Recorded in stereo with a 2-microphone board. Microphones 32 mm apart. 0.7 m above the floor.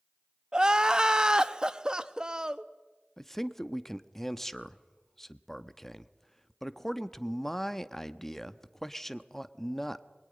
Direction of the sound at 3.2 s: 10° left (ahead or behind).